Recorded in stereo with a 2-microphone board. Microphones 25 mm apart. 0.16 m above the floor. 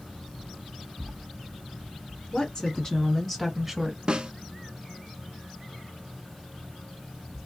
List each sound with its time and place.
2.3 s a woman speaking: 40° left (ahead or behind), 2 m; by 4.0 s 15° right (ahead or behind), 1.6 m
4.1 s a snare drum: 40° right (ahead or behind), 0.5 m